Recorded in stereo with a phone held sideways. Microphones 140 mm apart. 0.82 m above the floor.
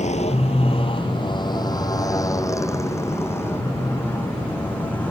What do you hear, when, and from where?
0.0 s a motorcycle: 55° left (ahead or behind); by 5.1 s 10° left (ahead or behind)